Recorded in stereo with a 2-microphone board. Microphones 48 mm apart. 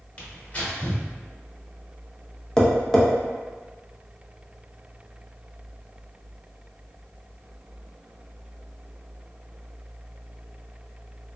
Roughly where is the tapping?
Centre.